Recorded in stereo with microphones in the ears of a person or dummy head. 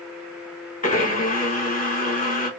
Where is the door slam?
I don't hear a door slam.